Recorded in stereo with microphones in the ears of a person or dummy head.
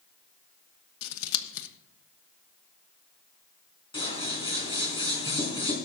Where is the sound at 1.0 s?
75° left (ahead or behind), 1.1 m.